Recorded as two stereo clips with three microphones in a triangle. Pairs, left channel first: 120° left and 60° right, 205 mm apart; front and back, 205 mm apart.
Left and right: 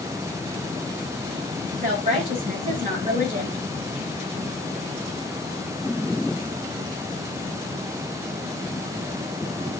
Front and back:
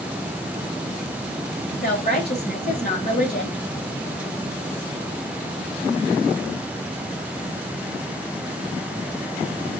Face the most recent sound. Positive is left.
turn(degrees=-25)